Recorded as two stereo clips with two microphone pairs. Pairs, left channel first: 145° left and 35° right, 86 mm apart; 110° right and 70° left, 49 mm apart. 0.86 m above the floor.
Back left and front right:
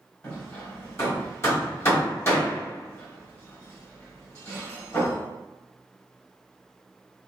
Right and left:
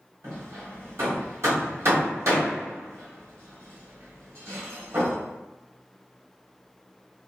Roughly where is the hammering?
Left.